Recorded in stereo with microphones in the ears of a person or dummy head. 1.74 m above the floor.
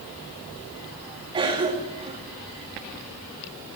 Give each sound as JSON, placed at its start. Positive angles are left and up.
{"t": 1.3, "sound": "a cough", "side_deg": -25, "distance_m": 3.0}